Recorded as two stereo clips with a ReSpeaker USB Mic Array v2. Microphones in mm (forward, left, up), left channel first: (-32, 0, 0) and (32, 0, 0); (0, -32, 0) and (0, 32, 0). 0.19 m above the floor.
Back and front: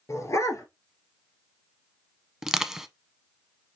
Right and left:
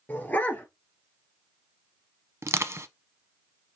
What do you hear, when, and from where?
0.1 s a dog barking: 155° right, 1.4 m
2.4 s crushing: 80° left, 0.5 m